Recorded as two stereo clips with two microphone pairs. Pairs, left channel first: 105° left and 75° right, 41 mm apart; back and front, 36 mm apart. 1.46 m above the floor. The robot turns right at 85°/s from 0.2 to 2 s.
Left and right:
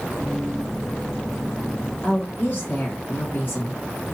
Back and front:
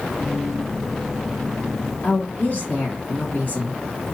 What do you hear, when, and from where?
2.0 s a woman speaking: 150° left, 1.5 m